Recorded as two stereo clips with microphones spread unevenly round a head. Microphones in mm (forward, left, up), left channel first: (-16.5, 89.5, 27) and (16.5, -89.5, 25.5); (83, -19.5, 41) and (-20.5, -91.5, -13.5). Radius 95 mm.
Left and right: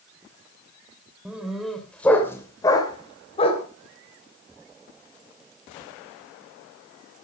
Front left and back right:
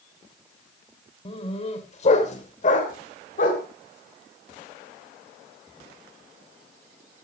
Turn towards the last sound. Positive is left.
turn(degrees=45)